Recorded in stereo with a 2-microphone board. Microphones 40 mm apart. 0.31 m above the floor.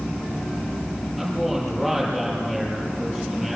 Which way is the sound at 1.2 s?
5° left (ahead or behind).